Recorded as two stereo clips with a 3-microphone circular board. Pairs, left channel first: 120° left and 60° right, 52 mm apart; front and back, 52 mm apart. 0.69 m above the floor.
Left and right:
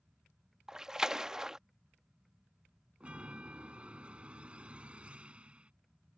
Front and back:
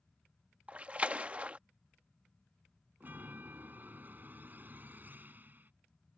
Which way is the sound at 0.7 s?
130° right.